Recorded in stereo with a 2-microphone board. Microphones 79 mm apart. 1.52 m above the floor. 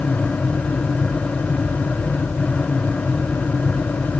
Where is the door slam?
No door slam in this recording.